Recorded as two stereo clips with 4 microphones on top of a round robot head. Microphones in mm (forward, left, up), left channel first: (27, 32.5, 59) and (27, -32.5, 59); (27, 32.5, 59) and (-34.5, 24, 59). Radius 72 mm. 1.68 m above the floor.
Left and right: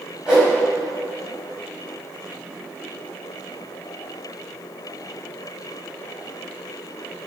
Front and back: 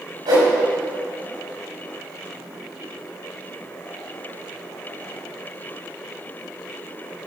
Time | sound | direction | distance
0.3 | a whoosh | 170° right | 5 m